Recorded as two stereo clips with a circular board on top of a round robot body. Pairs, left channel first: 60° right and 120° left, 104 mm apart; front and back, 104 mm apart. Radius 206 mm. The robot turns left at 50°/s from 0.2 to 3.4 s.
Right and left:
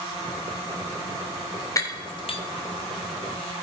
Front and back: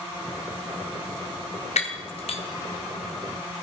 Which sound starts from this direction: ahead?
Breaking glass, at 1.8 s.